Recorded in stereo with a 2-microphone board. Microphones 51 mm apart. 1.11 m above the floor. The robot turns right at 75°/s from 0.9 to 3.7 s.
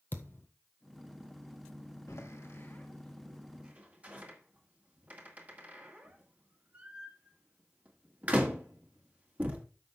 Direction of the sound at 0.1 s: 45° left (ahead or behind).